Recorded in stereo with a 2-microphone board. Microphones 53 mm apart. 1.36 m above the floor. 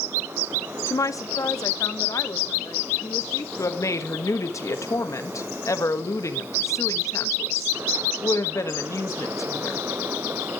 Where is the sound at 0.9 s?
70° left (ahead or behind), 0.5 m; by 3.5 s 85° left, 2 m.